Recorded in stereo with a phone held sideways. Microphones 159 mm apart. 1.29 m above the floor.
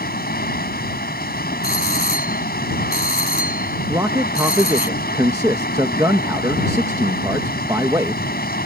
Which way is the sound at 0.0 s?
80° left.